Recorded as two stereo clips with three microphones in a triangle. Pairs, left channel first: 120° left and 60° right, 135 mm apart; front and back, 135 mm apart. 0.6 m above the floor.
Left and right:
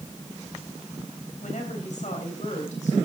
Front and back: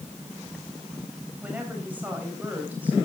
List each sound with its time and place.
1.4 s a woman speaking: 105° left, 3 m